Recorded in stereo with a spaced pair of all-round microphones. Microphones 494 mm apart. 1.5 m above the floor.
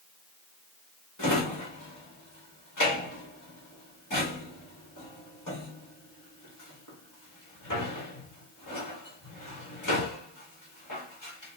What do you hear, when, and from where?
1.2 s a drawer: 35° left (ahead or behind), 2 m